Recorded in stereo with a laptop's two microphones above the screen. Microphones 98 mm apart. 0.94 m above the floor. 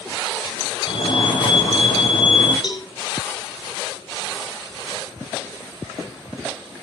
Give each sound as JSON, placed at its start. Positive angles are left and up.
{"t": 0.9, "sound": "a fire alarm", "side_deg": 55, "distance_m": 5.5}
{"t": 2.6, "sound": "a cowbell", "side_deg": 50, "distance_m": 3.5}